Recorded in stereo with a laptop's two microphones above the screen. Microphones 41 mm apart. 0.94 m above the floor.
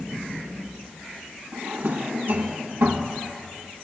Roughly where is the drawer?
Right.